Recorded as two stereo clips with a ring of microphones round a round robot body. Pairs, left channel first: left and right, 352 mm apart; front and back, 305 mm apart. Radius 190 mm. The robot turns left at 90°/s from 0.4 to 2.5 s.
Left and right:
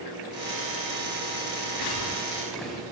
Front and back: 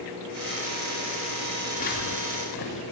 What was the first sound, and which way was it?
Footsteps, 80° left.